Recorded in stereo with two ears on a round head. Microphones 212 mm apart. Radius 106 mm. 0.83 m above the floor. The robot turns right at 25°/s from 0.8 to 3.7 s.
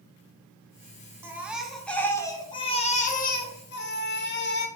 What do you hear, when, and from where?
1.2 s a baby crying: 10° right, 1.2 m; by 4.7 s 50° left, 1.2 m